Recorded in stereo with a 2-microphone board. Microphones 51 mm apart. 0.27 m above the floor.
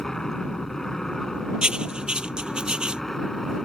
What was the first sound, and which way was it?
An aircraft, 10° left (ahead or behind).